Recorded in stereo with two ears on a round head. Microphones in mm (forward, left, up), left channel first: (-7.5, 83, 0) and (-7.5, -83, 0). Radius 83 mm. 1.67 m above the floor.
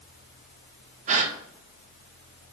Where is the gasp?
40° right (ahead or behind), 1.0 m.